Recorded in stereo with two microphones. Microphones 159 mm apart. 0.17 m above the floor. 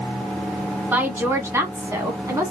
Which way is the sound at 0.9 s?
15° right (ahead or behind).